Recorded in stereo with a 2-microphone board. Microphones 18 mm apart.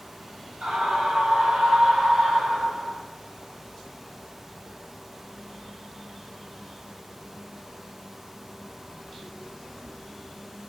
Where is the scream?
75° right (ahead or behind), 8 m; by 3.0 s 80° right, 10.5 m.